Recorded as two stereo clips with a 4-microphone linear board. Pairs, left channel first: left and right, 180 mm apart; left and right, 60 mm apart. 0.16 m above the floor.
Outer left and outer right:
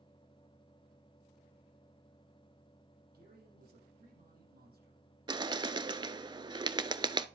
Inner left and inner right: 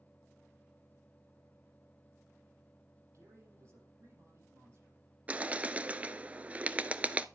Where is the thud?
No thud in this recording.